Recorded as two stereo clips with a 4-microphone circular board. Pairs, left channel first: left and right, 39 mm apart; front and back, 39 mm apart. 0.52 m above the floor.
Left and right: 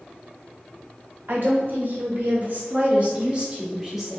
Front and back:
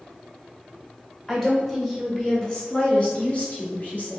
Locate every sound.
1.3 s a woman speaking: 80° right, 1.9 m; by 4.2 s 5° right, 1.3 m